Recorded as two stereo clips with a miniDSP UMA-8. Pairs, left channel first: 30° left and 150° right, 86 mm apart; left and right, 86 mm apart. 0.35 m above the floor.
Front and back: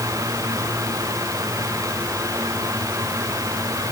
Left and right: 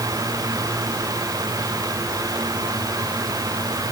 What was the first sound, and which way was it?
Only background noise.